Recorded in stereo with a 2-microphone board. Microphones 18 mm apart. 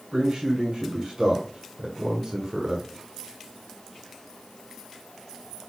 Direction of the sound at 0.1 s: 60° right (ahead or behind).